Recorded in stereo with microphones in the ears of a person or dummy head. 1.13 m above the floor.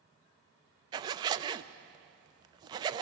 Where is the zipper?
25° right (ahead or behind), 0.5 m.